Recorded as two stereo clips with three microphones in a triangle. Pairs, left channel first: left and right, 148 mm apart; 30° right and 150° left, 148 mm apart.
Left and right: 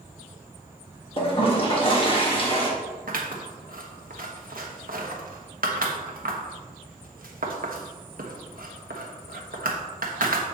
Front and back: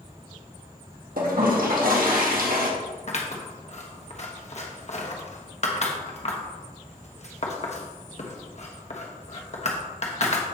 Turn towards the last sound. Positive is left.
turn(degrees=-70)